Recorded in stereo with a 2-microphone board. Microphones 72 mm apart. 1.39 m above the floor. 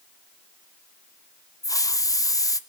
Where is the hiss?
55° left (ahead or behind), 0.8 m.